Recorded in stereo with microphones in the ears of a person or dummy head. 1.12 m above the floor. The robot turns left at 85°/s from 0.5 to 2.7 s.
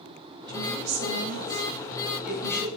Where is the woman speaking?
25° right, 8 m; by 2.7 s 145° left, 8 m.